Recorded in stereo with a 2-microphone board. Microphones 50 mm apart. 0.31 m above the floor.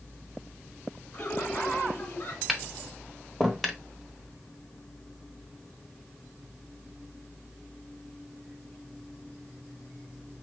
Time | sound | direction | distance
1.1 | laughter | 40° left (ahead or behind) | 4 m
2.5 | tapping | centre (ahead or behind) | 1.0 m